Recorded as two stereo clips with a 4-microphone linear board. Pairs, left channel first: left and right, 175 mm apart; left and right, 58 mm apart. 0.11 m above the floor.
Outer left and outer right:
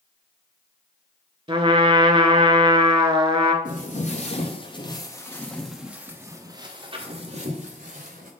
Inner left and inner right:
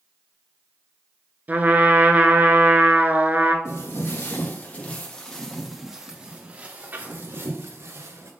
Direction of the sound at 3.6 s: 50° left (ahead or behind).